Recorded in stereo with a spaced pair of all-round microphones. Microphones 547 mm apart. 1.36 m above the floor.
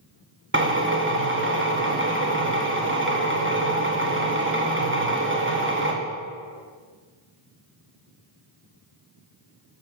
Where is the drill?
20° right (ahead or behind), 0.9 m.